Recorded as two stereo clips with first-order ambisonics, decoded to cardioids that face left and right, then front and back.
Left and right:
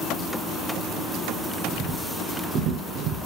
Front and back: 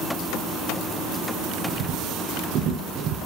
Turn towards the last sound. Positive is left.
turn(degrees=-125)